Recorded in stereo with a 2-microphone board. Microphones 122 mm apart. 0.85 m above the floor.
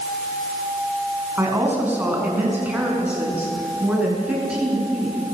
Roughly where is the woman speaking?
Centre.